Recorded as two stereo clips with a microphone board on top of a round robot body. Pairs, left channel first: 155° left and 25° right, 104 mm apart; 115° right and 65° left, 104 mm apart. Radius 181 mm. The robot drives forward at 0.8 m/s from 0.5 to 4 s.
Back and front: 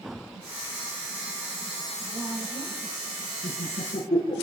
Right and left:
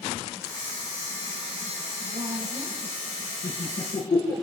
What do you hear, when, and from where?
2.1 s a woman speaking: 25° left, 4 m; by 3.1 s 30° left, 3 m
3.4 s laughter: 150° right, 9.5 m; by 4.3 s 155° right, 10 m